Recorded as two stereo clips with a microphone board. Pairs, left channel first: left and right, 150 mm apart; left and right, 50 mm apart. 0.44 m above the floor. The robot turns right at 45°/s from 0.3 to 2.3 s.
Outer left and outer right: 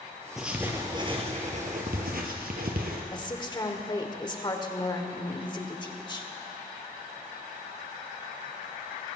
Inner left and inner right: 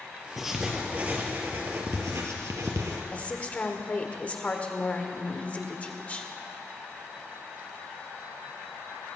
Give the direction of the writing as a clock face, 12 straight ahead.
6 o'clock.